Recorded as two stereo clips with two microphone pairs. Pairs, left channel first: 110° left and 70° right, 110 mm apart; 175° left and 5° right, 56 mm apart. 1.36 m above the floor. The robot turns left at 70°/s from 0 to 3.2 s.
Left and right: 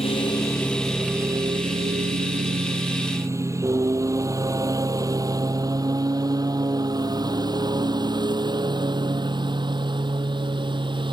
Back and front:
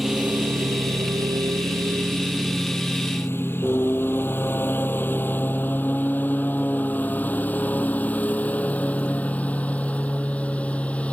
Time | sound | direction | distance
0.0 | a lawn mower | 80° left | ?